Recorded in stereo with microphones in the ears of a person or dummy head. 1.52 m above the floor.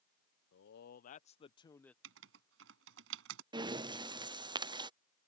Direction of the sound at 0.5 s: 65° left (ahead or behind).